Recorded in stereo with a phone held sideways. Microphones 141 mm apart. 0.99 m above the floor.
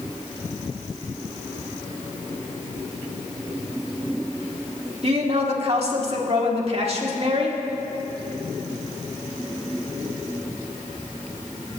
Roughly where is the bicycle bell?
I don't hear a bicycle bell.